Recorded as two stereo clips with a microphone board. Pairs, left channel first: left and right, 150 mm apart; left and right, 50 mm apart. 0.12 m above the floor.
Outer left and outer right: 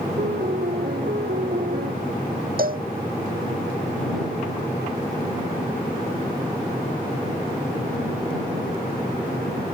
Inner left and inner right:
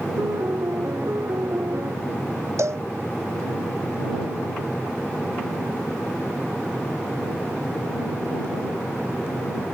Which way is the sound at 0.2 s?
75° right (ahead or behind).